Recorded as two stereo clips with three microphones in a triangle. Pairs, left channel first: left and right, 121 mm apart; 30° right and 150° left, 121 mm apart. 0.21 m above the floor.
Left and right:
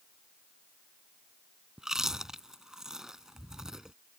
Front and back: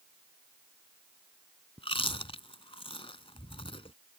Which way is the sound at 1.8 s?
5° right.